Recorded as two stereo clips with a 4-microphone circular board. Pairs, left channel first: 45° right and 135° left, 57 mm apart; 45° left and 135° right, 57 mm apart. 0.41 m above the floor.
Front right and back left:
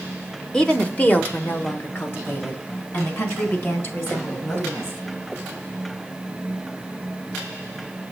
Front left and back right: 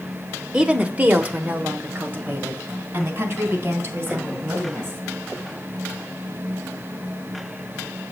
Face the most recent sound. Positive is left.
turn(degrees=-85)